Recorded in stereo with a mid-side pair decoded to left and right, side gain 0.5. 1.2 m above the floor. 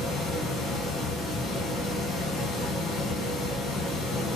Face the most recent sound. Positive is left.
turn(degrees=65)